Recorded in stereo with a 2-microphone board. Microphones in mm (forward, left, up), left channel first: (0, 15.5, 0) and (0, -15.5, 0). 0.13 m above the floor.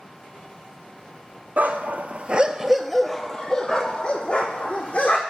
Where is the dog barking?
70° right (ahead or behind), 0.8 m; by 5.2 s 45° left (ahead or behind), 1.9 m.